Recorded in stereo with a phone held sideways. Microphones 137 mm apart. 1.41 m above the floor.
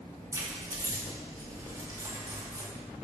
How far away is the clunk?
No clunk in this recording.